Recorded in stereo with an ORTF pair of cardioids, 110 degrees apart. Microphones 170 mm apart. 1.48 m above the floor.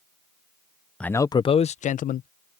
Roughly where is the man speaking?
Ahead.